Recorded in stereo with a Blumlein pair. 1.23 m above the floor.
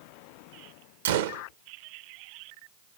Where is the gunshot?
60° right, 0.6 m.